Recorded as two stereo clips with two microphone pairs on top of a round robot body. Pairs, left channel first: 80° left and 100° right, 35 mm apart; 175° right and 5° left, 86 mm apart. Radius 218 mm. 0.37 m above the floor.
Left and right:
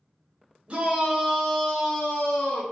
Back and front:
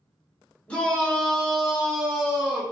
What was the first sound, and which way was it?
A shout, 90° right.